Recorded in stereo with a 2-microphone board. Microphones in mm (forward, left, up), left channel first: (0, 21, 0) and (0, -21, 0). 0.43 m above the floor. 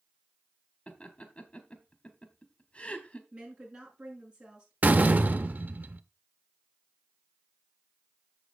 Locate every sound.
0.9 s laughter: 35° left (ahead or behind), 1.4 m
3.3 s a woman speaking: 25° right (ahead or behind), 6 m
4.8 s a door slam: 45° right (ahead or behind), 0.8 m